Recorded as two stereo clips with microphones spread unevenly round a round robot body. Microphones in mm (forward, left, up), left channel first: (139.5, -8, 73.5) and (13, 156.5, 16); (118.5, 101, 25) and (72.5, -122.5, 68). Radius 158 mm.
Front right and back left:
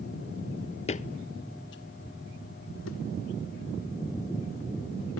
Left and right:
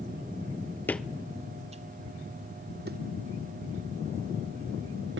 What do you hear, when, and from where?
0.9 s footsteps: 10° right, 0.5 m; by 5.2 s 70° right, 2.5 m